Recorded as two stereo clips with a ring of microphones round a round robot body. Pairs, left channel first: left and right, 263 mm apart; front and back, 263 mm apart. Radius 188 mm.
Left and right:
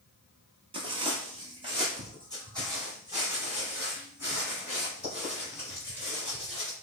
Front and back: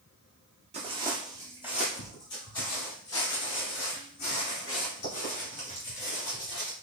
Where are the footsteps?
140° right, 0.9 m; by 6.7 s straight ahead, 3.5 m.